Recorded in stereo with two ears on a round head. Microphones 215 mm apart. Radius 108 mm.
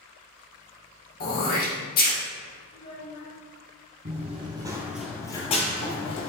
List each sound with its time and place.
1.2 s throat clearing: 40° left (ahead or behind), 1.2 m
2.7 s a child speaking: 25° left (ahead or behind), 1.3 m
4.0 s running footsteps: 35° right (ahead or behind), 1.2 m; by 6.3 s 50° left (ahead or behind), 1.2 m